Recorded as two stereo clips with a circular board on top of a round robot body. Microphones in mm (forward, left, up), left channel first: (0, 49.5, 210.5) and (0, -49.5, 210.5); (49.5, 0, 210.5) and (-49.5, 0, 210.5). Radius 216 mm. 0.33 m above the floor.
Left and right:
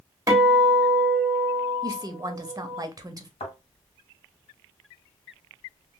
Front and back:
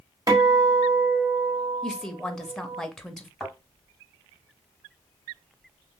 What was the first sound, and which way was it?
A guitar, 135° right.